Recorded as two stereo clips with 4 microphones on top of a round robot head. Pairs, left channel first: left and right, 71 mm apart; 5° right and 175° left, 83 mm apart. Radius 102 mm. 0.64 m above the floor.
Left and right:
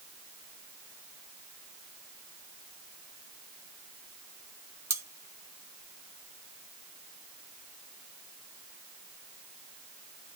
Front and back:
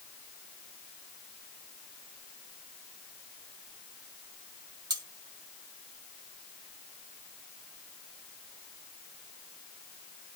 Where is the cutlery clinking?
140° right, 1.2 m.